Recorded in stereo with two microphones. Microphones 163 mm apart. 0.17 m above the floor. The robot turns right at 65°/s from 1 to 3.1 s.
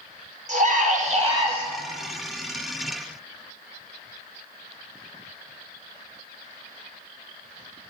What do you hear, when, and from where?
0.5 s a scream: 50° right, 5 m; by 1.6 s 10° right, 5 m